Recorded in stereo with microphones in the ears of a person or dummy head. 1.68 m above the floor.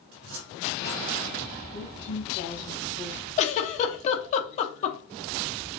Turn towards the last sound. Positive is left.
turn(degrees=40)  # may be behind; listen again after turning